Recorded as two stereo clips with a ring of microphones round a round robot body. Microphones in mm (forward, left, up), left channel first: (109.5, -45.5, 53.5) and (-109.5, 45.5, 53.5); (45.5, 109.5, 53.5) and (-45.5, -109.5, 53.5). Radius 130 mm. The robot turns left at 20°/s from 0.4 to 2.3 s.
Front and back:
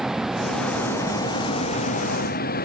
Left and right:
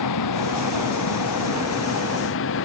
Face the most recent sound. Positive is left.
turn(degrees=30)